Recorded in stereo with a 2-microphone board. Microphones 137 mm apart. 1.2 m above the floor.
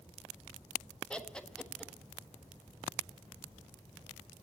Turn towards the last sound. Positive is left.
turn(degrees=5)  # may be behind; listen again after turning